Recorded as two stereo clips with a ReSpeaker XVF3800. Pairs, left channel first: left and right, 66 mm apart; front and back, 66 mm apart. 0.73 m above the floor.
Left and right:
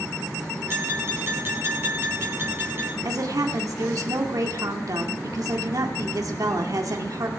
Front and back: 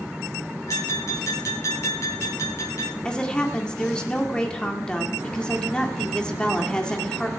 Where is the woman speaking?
75° right, 2.0 m.